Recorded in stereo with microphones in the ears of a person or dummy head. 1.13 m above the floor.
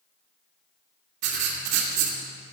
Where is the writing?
60° right (ahead or behind), 2 m.